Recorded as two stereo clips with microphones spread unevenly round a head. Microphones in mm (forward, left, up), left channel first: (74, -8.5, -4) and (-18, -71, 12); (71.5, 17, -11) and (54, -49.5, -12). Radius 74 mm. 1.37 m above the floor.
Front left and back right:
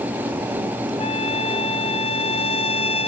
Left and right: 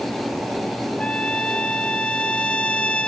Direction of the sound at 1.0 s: Straight ahead.